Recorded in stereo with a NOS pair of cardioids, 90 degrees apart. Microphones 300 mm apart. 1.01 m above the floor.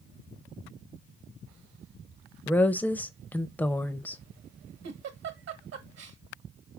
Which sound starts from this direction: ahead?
A woman speaking, at 2.5 s.